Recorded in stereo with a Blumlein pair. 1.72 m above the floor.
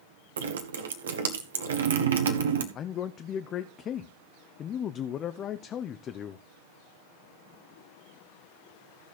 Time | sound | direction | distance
0.4 | dripping | 65° right | 1.3 m
2.8 | a man speaking | 30° left | 0.6 m